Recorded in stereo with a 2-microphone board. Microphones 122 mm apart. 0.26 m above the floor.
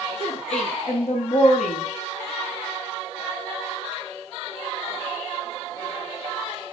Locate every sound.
0.2 s a woman speaking: 60° left (ahead or behind), 3.5 m; by 1.8 s 70° left (ahead or behind), 6 m